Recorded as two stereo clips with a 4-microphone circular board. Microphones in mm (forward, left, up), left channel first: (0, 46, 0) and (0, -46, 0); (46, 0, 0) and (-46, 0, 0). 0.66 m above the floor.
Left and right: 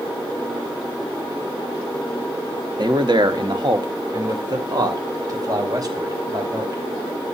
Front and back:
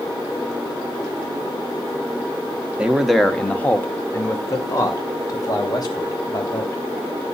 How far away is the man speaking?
About 1.2 m.